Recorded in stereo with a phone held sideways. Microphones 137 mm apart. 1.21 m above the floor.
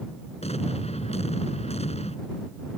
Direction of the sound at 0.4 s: 50° left (ahead or behind).